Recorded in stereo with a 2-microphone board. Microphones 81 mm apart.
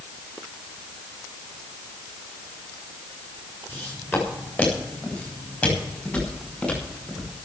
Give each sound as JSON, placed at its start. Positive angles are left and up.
{"t": 3.7, "sound": "footsteps", "side_deg": 25, "distance_m": 8.5}